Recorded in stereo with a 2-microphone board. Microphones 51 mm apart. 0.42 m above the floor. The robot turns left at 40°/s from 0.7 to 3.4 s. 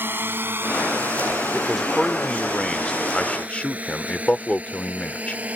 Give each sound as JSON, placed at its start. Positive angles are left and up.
{"t": 0.0, "sound": "a drone", "side_deg": -45}
{"t": 1.5, "sound": "a man speaking", "side_deg": -10}